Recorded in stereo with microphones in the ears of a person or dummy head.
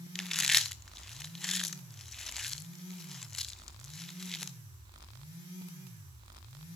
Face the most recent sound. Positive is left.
turn(degrees=5)  # may be behind; listen again after turning